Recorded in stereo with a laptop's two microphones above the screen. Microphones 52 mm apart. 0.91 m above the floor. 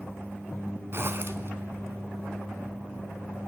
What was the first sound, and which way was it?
A zipper, 45° right (ahead or behind).